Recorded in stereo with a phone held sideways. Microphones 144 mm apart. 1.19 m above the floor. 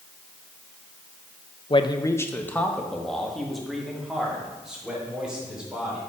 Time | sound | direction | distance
1.7 | a man speaking | 40° left (ahead or behind) | 0.5 m